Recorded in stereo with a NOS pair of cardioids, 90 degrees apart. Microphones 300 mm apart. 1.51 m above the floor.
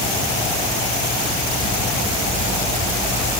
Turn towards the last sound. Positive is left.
No sound to turn to.